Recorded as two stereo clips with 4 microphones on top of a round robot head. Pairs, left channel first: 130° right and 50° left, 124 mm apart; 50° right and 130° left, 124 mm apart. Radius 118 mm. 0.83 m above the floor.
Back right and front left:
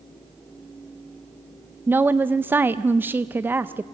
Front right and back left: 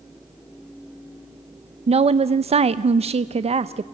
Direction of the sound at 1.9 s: 120° left.